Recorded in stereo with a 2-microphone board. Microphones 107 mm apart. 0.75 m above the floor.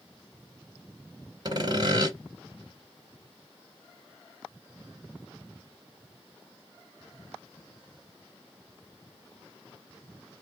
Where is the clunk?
No clunk in this recording.